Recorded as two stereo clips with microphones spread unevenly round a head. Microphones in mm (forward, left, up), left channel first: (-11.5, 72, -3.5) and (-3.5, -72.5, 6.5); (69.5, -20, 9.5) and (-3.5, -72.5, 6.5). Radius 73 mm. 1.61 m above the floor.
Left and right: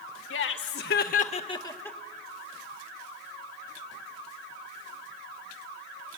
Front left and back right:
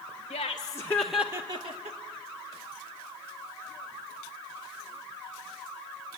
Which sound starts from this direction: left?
Laughter, at 0.3 s.